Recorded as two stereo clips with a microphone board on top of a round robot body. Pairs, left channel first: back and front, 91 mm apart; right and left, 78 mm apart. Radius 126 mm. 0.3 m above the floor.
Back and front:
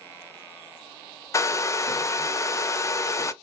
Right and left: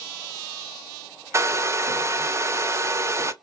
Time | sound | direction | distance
1.3 | a hair dryer | 135° left | 0.5 m